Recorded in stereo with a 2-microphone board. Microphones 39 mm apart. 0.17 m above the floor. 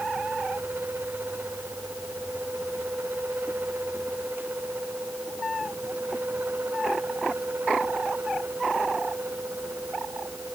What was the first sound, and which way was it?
Only background noise.